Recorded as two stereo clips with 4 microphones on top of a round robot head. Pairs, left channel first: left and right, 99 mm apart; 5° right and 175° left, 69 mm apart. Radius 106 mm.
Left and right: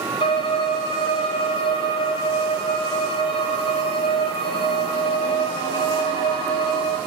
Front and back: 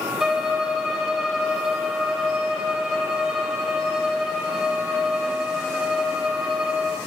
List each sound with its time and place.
0.2 s a violin: 95° left, 0.6 m